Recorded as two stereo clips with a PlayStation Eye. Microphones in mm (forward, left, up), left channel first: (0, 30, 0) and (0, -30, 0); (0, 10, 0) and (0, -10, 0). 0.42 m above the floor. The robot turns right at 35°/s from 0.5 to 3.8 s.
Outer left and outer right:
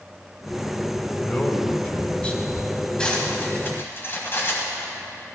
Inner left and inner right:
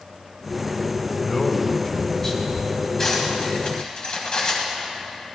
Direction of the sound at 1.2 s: 25° left (ahead or behind).